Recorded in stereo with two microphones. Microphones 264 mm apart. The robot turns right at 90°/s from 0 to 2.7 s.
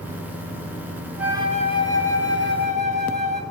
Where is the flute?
175° right, 0.6 m; by 3.4 s 40° right, 0.6 m.